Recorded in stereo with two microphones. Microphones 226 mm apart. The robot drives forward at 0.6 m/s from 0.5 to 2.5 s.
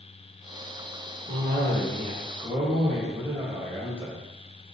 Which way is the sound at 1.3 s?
40° right (ahead or behind).